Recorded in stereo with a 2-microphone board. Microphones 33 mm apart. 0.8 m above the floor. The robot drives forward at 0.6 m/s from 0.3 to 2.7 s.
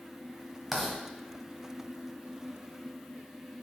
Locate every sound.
0.7 s writing: 10° right (ahead or behind), 1.5 m